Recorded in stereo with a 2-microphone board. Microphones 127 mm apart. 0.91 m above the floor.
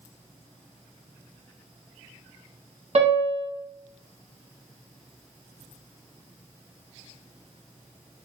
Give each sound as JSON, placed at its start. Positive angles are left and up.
{"t": 3.0, "sound": "a piano", "side_deg": -60, "distance_m": 1.4}